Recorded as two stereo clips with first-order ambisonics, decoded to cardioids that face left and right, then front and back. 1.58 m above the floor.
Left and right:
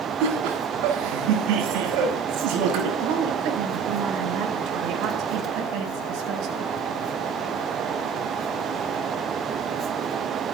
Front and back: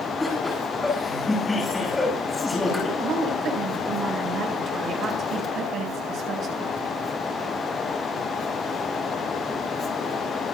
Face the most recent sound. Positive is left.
turn(degrees=-120)